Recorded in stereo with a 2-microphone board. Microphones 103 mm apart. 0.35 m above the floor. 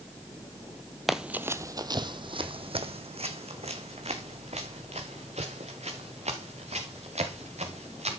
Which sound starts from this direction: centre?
Running footsteps, at 1.1 s.